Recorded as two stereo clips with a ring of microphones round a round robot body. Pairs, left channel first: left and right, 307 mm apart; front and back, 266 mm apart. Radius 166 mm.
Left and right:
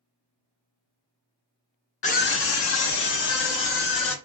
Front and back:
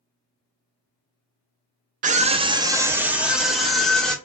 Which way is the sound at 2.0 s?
140° left.